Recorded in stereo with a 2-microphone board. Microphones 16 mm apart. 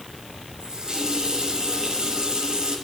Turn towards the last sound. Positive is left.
turn(degrees=-40)  # may be behind; listen again after turning